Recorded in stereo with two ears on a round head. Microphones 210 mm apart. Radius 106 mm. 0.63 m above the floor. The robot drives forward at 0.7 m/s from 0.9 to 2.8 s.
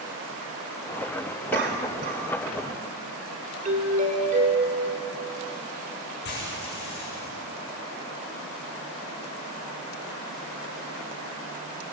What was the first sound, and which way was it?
A cough, 50° right (ahead or behind).